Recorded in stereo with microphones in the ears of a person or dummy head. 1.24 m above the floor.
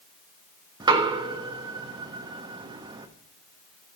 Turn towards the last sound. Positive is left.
turn(degrees=-20)  # may be behind; listen again after turning